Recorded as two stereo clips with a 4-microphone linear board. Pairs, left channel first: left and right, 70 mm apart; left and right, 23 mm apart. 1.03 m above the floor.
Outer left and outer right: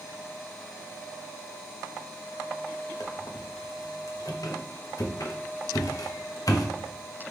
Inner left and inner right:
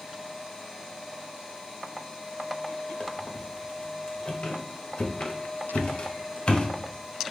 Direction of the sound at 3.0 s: 55° left (ahead or behind).